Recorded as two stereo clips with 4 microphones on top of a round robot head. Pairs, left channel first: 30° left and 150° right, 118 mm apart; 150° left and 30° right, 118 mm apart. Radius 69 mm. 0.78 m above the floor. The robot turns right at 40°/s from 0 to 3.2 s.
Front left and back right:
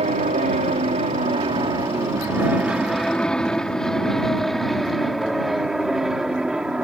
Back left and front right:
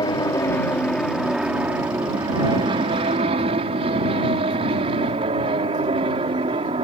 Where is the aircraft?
165° right; by 6.8 s 65° right.